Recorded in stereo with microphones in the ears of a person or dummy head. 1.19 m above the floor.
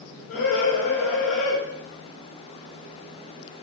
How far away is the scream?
About 3.5 m.